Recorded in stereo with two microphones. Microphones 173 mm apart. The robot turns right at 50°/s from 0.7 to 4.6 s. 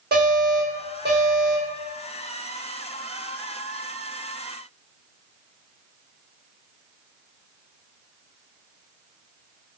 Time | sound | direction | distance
0.1 | an alarm | 110° right | 0.9 m